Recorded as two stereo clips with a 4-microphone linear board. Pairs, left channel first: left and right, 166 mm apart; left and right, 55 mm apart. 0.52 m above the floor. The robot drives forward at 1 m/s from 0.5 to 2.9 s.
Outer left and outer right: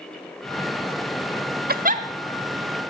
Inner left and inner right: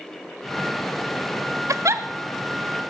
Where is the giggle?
65° right (ahead or behind), 0.7 m; by 2.0 s 45° right (ahead or behind), 0.9 m.